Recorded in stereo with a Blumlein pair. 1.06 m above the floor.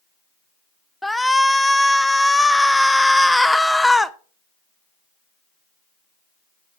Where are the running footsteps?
No running footsteps in this recording.